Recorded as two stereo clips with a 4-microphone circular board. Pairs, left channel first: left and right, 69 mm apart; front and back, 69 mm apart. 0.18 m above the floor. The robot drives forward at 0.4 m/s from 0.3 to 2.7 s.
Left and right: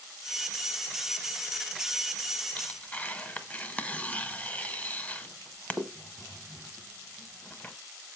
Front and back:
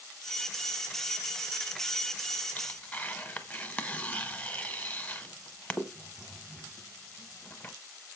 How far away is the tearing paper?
About 0.8 m.